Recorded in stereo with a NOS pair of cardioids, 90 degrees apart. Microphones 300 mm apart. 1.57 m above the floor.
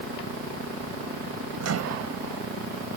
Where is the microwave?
55° right.